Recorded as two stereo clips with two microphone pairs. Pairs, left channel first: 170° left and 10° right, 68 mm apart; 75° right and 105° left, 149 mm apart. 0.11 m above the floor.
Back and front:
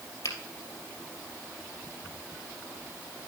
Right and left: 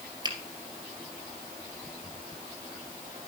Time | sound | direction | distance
0.2 | a finger snap | 160° left | 2.5 m